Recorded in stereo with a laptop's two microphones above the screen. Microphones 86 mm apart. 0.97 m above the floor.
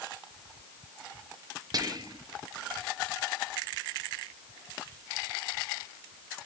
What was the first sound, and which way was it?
Whispering, 45° right (ahead or behind).